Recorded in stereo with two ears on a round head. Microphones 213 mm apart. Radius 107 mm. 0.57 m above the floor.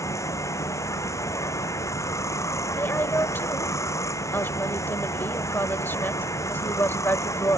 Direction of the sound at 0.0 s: 15° left (ahead or behind).